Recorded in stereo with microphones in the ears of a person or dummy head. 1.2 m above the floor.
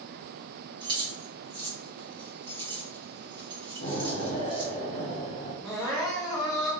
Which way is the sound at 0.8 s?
25° right (ahead or behind).